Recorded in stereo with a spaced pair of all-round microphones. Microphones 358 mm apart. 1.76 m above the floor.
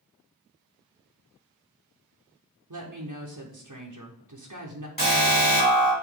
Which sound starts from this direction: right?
A woman speaking, at 2.7 s.